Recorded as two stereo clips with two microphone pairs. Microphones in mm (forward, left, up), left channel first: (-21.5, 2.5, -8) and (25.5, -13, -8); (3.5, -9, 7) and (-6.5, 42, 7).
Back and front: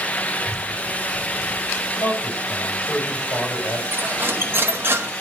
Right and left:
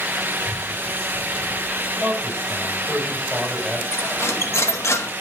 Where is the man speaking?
Straight behind, 5.5 m.